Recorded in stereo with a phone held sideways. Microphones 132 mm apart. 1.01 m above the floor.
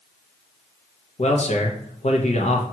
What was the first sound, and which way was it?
A man speaking, 55° left (ahead or behind).